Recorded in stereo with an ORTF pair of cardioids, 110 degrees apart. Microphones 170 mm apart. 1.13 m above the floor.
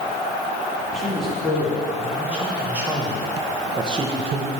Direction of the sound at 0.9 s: Straight ahead.